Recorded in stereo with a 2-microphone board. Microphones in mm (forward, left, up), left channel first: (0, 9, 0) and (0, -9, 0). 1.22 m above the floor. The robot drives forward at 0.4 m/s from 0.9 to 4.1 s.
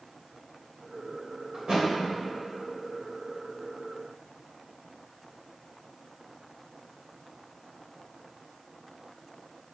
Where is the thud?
55° right (ahead or behind), 2.5 m; by 1.9 s 60° right (ahead or behind), 2.5 m.